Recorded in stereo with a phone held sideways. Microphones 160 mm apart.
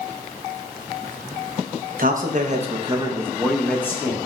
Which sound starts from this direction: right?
A man speaking, at 2.0 s.